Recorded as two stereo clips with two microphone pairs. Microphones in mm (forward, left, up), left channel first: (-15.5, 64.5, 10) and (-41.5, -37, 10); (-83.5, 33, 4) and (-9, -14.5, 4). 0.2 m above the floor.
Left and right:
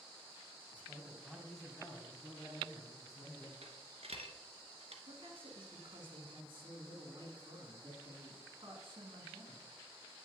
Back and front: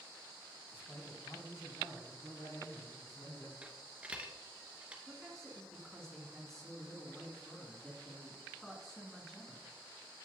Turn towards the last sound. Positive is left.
turn(degrees=-130)